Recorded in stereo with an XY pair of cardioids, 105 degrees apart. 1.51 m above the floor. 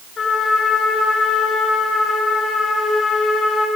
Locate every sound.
0.2 s a trumpet: 45° left, 6 m